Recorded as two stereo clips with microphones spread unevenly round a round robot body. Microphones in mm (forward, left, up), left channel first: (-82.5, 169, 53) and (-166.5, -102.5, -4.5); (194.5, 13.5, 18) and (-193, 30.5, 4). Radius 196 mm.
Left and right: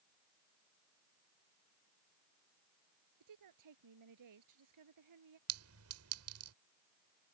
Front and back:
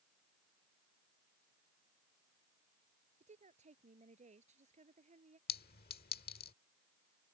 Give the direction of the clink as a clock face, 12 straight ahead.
2 o'clock.